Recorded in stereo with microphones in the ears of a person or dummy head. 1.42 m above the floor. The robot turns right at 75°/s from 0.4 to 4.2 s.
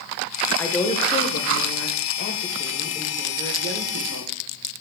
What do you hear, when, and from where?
0.6 s a woman speaking: 5° left, 1.2 m; by 4.3 s 85° right, 1.2 m